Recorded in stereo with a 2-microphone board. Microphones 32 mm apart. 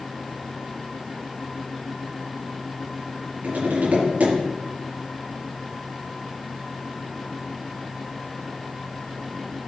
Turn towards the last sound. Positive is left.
turn(degrees=-60)  # may be behind; listen again after turning